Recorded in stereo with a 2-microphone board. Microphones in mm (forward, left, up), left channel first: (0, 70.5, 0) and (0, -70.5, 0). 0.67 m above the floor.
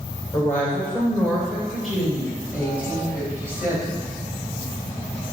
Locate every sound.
0.3 s a woman speaking: 15° left (ahead or behind), 3 m; by 4.0 s 15° right (ahead or behind), 5 m